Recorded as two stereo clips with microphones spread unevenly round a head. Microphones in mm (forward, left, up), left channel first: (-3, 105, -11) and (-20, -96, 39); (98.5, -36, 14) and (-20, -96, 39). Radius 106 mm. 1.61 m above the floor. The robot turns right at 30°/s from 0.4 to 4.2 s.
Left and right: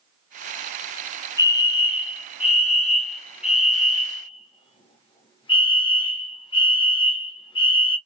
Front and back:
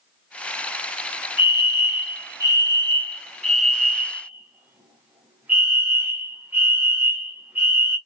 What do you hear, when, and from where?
1.4 s a fire alarm: 35° left, 1.2 m; by 8.0 s 120° left, 1.2 m